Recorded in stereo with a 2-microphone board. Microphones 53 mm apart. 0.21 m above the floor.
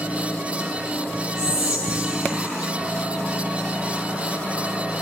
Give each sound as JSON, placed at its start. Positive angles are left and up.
{"t": 1.4, "sound": "whispering", "side_deg": -15, "distance_m": 1.2}